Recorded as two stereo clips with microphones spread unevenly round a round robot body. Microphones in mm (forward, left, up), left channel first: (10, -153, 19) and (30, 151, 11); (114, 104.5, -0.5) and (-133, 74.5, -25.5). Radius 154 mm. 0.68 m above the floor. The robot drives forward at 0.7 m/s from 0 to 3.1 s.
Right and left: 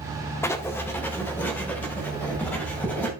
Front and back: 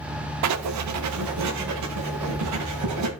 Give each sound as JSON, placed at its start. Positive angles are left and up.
{"t": 0.4, "sound": "writing", "azimuth_deg": -175, "distance_m": 0.7}